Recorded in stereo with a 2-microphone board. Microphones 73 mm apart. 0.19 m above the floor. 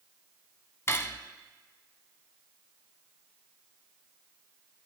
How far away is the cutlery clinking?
About 0.7 m.